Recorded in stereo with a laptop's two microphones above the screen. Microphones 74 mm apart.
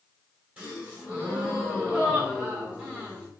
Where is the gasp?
20° right (ahead or behind), 4 m.